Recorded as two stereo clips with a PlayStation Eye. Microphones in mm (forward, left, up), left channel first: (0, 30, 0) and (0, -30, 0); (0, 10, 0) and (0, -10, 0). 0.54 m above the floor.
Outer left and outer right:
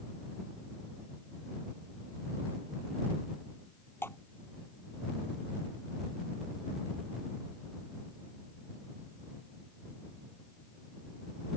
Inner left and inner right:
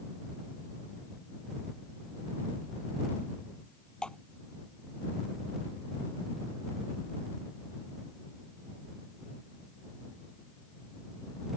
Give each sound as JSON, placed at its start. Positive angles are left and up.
{"t": 4.0, "sound": "dripping", "side_deg": 40}